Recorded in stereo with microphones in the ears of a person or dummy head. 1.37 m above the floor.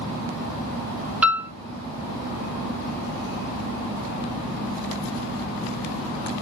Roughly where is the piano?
Centre.